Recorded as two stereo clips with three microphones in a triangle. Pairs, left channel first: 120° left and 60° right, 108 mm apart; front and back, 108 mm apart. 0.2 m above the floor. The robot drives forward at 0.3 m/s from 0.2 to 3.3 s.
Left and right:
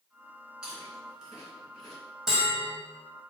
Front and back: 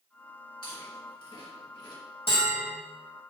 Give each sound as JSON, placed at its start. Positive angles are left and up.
{"t": 0.6, "sound": "chewing", "azimuth_deg": 20, "distance_m": 3.0}
{"t": 2.3, "sound": "a bell", "azimuth_deg": 25, "distance_m": 3.0}